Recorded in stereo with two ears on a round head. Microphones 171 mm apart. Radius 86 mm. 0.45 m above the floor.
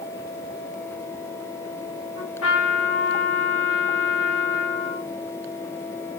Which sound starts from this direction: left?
A trumpet, at 2.2 s.